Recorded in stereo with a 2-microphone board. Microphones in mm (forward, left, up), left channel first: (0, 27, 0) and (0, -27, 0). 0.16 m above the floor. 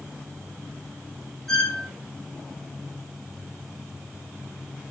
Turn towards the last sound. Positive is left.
turn(degrees=5)  # may be behind; listen again after turning